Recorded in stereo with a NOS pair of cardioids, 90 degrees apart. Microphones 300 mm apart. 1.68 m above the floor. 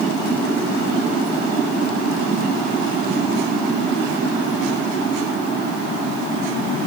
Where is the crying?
No crying in this recording.